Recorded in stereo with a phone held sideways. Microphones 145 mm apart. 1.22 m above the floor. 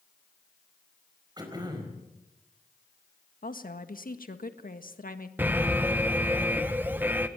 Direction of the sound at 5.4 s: 10° right (ahead or behind).